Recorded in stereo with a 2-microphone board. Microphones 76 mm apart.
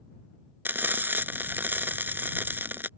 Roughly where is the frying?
Right.